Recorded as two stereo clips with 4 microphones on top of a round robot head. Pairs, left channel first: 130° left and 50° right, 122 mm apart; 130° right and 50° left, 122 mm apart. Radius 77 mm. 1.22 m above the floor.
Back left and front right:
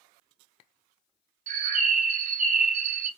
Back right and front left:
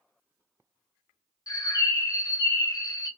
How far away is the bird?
About 1.1 m.